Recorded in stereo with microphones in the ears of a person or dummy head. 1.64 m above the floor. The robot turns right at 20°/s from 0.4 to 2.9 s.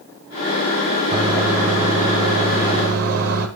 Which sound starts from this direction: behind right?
A microwave, at 1.1 s.